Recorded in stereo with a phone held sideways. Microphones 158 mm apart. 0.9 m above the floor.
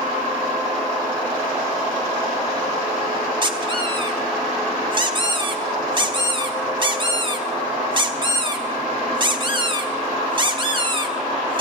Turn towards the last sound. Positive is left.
turn(degrees=-35)  # may be behind; listen again after turning